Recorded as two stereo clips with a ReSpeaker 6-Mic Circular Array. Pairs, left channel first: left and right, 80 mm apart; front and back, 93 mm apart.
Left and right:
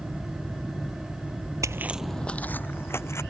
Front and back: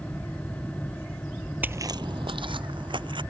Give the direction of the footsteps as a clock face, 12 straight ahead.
4 o'clock.